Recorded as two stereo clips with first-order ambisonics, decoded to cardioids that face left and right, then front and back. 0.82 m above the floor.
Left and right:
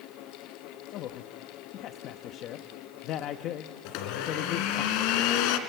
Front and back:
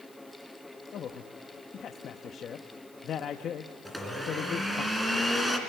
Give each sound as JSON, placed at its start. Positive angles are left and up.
{"t": 0.9, "sound": "a man speaking", "azimuth_deg": 55, "distance_m": 0.7}
{"t": 3.9, "sound": "a blender", "azimuth_deg": 95, "distance_m": 2.0}